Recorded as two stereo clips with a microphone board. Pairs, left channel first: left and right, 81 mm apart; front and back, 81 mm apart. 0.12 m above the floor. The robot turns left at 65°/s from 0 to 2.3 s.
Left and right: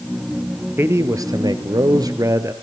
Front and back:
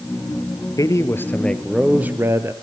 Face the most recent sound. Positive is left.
turn(degrees=-130)